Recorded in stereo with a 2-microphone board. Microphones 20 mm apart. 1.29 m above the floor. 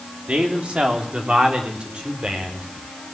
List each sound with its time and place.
0.3 s a man speaking: 75° right (ahead or behind), 3.5 m; by 2.7 s 60° right (ahead or behind), 5 m